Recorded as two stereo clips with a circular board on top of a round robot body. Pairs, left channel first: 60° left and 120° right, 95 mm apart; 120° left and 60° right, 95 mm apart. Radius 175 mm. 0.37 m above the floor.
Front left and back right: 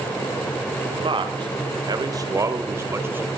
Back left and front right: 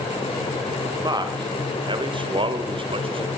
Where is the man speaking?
100° right, 2 m; by 3.3 s 55° right, 2.5 m.